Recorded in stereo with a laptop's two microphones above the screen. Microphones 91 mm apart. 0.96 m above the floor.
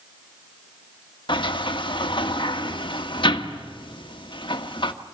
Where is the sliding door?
65° left (ahead or behind), 1.5 m.